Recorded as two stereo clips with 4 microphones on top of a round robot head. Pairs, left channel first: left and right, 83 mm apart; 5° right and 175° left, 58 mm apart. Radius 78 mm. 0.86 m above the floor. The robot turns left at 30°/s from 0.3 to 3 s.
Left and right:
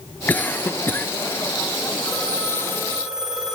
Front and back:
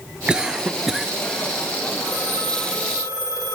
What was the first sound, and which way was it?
A cough, 125° left.